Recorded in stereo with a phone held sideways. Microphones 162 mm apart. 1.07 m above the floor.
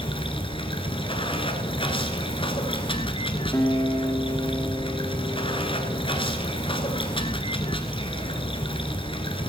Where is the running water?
35° left (ahead or behind), 1.5 m.